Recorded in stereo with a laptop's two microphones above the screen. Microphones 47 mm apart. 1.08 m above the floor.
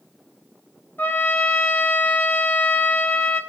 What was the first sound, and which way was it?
A trumpet, 45° left (ahead or behind).